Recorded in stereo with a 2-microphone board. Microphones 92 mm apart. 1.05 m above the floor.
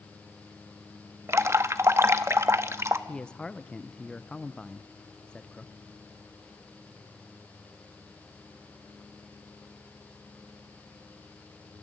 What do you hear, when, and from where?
1.3 s dripping: 30° right (ahead or behind), 0.9 m
3.1 s a man speaking: 10° left (ahead or behind), 0.6 m